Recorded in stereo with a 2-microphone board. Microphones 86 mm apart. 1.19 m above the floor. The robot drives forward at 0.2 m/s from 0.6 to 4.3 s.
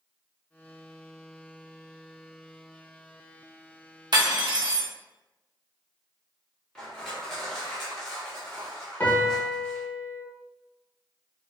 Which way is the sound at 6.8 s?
5° left (ahead or behind).